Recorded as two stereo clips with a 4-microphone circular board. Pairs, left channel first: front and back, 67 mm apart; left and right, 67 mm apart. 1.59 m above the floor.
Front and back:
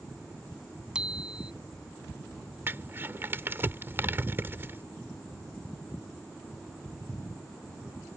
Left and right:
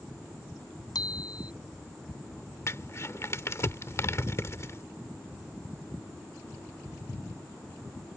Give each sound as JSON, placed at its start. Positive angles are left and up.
{"t": 0.9, "sound": "a bicycle bell", "azimuth_deg": 105}
{"t": 2.7, "sound": "crumpling", "azimuth_deg": 130}